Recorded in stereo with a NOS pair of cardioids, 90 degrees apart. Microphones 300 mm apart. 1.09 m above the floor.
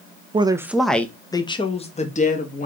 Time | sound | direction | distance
0.3 | a woman speaking | 20° right | 0.7 m